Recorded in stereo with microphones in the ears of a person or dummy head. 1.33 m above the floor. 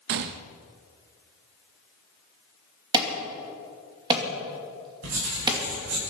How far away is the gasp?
I don't hear a gasp.